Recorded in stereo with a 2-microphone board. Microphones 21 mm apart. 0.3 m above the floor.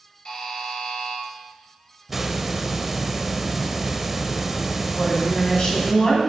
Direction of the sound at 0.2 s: 35° left (ahead or behind).